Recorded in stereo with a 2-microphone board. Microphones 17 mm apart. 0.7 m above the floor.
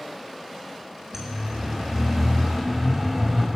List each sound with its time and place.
1.1 s a siren: 30° right (ahead or behind), 7.5 m; by 3.5 s 20° right (ahead or behind), 5.5 m